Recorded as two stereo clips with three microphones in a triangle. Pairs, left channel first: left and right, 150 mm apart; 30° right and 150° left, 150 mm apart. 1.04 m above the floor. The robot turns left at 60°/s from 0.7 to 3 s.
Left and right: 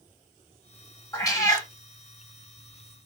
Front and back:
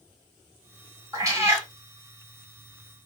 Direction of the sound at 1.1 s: 125° left.